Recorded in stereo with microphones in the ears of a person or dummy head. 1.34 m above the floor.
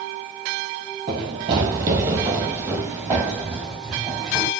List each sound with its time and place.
1.1 s running footsteps: 25° right (ahead or behind), 1.4 m; by 4.5 s centre (ahead or behind), 3 m